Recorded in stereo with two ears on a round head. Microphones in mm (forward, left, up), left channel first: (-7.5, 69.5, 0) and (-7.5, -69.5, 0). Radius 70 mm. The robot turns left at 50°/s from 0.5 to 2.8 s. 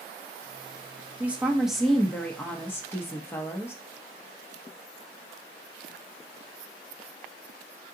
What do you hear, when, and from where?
1.2 s a woman speaking: 10° right (ahead or behind), 0.6 m; by 3.8 s 15° left (ahead or behind), 0.6 m